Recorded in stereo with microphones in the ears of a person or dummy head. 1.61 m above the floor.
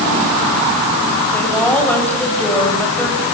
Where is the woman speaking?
10° left (ahead or behind), 7.5 m.